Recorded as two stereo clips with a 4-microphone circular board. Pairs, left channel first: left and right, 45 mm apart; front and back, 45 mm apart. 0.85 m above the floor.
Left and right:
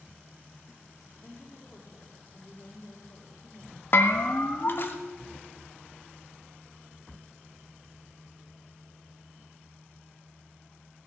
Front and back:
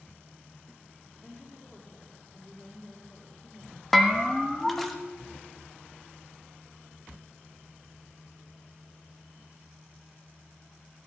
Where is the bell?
85° left, 1.1 m.